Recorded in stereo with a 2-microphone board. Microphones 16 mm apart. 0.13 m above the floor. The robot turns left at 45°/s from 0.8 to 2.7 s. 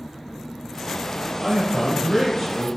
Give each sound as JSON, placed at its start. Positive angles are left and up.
{"t": 1.4, "sound": "a man speaking", "side_deg": -25, "distance_m": 1.7}